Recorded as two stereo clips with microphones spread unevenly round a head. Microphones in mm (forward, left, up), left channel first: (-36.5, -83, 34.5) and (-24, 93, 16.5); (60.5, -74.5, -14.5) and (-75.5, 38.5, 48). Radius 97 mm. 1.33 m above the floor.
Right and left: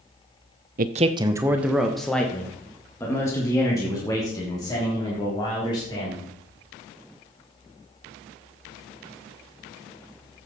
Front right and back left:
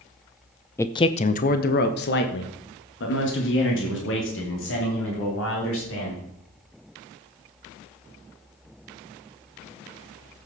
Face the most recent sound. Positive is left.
turn(degrees=-25)